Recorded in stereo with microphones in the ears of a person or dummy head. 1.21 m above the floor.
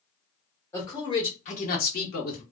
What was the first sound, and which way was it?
A man speaking, 15° left (ahead or behind).